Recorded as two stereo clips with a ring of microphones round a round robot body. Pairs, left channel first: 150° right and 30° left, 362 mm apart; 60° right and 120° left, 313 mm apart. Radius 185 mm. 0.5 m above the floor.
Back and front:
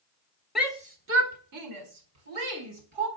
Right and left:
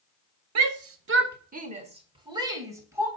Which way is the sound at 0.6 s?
120° left.